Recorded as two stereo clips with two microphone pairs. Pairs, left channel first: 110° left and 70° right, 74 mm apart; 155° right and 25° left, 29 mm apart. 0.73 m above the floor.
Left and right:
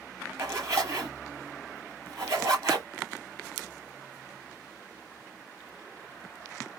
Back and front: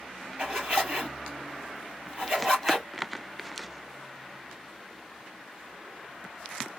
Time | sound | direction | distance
0.4 | a zipper | 25° right | 4 m